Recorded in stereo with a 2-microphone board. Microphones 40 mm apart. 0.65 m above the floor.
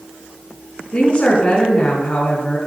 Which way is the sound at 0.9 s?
30° left (ahead or behind).